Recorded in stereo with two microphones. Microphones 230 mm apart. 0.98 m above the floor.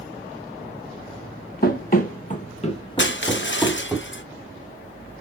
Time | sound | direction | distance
1.6 | running footsteps | 40° left (ahead or behind) | 1.4 m
3.0 | crushing | 55° left (ahead or behind) | 0.6 m